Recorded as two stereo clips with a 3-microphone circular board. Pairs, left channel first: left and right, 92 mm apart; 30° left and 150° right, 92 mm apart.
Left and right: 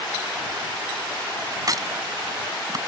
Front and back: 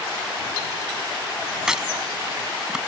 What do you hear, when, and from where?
1.7 s a crack: 70° right